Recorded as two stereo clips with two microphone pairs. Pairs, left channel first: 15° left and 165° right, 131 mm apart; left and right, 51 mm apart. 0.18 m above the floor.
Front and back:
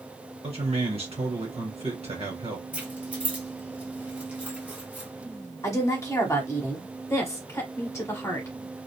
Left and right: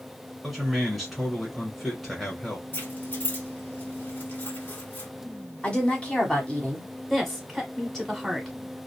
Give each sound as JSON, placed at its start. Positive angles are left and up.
{"t": 0.4, "sound": "a man speaking", "azimuth_deg": -175, "distance_m": 1.5}
{"t": 2.7, "sound": "keys jangling", "azimuth_deg": 120, "distance_m": 1.2}
{"t": 5.6, "sound": "a woman speaking", "azimuth_deg": 55, "distance_m": 1.1}
{"t": 7.1, "sound": "a woman speaking", "azimuth_deg": 15, "distance_m": 1.1}